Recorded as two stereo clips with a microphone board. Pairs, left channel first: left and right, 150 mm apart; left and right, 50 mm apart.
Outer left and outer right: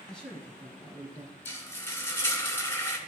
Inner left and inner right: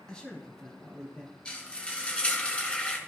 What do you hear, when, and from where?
0.1 s a man speaking: 5° left (ahead or behind), 1.6 m
1.4 s frying: 15° left (ahead or behind), 2 m